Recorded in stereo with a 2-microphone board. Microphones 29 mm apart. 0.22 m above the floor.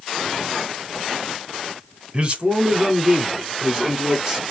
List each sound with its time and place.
2.1 s a man speaking: 35° right (ahead or behind), 1.4 m; by 4.4 s 20° right (ahead or behind), 3 m